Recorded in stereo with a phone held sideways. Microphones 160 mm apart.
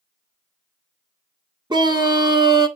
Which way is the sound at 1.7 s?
30° right (ahead or behind).